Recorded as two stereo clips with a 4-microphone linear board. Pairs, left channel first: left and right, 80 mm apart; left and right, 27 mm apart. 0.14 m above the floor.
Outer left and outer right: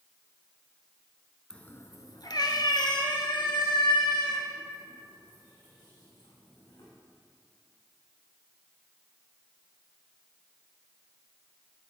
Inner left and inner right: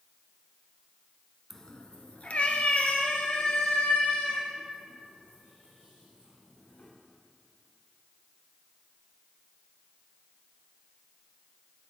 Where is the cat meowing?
10° left (ahead or behind), 0.7 m; by 6.9 s 65° left (ahead or behind), 6.5 m.